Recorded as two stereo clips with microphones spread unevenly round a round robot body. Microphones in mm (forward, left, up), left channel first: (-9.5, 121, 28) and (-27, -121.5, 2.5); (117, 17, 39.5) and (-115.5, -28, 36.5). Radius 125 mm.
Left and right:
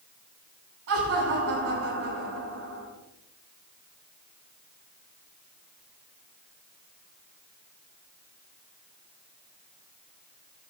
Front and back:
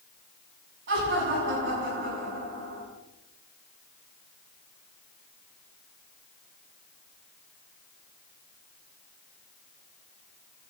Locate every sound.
0.9 s laughter: 125° right, 7.5 m